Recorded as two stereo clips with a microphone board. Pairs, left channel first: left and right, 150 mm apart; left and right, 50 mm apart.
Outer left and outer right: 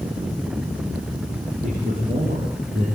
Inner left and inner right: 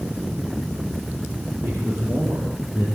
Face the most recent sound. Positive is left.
turn(degrees=-75)  # may be behind; listen again after turning